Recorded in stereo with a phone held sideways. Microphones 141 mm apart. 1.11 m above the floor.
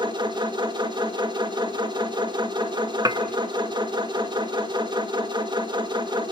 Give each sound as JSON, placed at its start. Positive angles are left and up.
{"t": 0.0, "sound": "a machine running", "side_deg": -35, "distance_m": 1.9}
{"t": 3.0, "sound": "dishes clattering", "side_deg": -25, "distance_m": 0.9}